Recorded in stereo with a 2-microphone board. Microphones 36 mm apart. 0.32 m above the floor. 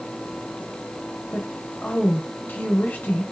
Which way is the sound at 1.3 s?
45° left (ahead or behind).